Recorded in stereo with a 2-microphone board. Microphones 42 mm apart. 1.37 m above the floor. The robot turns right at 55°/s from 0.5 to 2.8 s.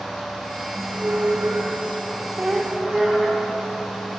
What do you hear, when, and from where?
0.7 s a squeak: 115° right, 0.9 m; by 3.7 s 5° left, 0.9 m